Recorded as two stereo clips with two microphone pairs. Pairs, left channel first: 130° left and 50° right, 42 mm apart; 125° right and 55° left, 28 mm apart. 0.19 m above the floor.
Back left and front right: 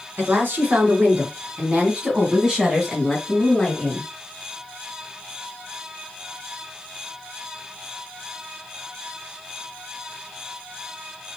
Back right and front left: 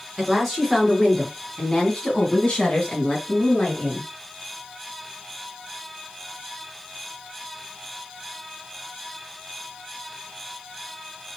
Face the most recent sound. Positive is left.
turn(degrees=-155)